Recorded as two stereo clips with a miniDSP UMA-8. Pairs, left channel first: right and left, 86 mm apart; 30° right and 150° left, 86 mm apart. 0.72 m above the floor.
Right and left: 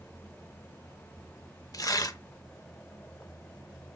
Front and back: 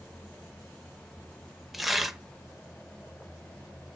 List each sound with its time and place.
1.7 s tearing paper: 125° right, 0.6 m